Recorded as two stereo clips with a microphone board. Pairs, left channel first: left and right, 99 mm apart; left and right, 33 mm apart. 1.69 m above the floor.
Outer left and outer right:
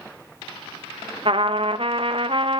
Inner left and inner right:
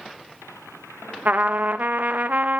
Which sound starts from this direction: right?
A trumpet, at 1.2 s.